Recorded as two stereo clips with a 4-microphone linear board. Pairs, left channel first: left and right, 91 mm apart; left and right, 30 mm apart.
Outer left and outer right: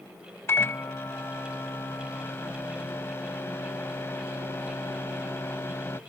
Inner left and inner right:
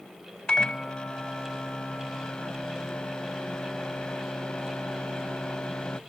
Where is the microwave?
30° left (ahead or behind).